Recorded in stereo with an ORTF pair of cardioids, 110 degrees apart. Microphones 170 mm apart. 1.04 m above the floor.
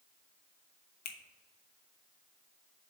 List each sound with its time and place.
1.1 s a finger snap: 70° left, 1.1 m